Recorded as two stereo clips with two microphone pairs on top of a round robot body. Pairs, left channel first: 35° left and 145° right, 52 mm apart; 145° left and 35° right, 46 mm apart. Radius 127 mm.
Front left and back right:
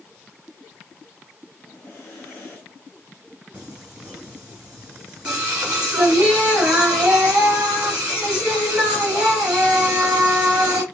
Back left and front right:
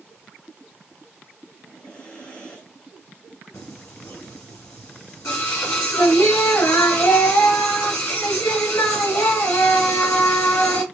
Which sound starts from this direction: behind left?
Singing, at 3.5 s.